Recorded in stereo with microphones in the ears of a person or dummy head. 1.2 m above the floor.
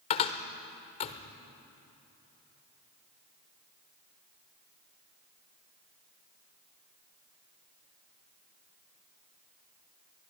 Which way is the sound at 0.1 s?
35° left (ahead or behind).